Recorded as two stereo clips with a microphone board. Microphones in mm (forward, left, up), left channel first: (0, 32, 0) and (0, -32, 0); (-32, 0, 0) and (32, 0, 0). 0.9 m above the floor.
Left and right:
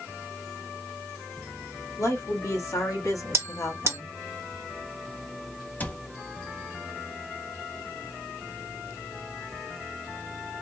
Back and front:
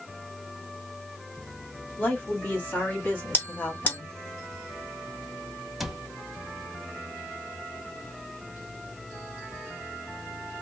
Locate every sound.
2.0 s a woman speaking: 120° left, 1.8 m; by 4.2 s 125° left, 0.7 m
3.3 s a bell: 125° right, 1.0 m
5.8 s a cupboard door: 80° left, 0.5 m